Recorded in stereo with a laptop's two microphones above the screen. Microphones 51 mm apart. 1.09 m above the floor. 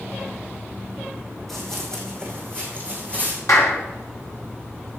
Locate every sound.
1.5 s running footsteps: 5° left (ahead or behind), 2.5 m; by 3.4 s 25° left (ahead or behind), 3 m
3.5 s a clap: 85° left, 3 m